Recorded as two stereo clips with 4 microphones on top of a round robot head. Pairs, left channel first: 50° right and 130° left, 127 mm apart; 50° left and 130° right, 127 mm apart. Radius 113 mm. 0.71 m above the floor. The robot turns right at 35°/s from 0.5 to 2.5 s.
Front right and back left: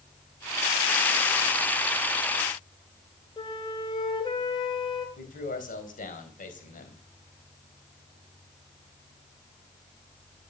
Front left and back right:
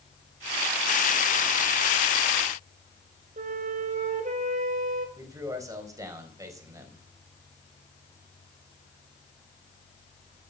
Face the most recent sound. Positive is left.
turn(degrees=-65)